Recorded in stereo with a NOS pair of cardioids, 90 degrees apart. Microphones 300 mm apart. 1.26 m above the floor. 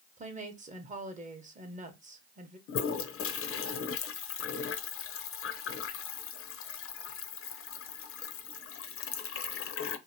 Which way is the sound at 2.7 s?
50° left.